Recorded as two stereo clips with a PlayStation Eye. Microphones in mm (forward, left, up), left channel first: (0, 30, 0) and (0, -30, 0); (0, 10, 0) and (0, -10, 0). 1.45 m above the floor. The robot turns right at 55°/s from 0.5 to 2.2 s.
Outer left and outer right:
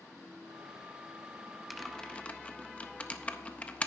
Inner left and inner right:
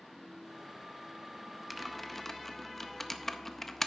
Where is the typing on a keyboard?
Centre (ahead or behind), 0.5 m; by 3.9 s 20° left (ahead or behind), 0.5 m.